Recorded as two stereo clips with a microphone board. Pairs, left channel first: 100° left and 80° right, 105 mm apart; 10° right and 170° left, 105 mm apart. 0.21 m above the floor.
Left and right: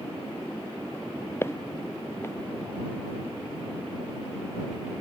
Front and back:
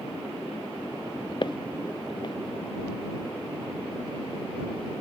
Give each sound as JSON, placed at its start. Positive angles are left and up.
{"t": 1.4, "sound": "footsteps", "azimuth_deg": 35}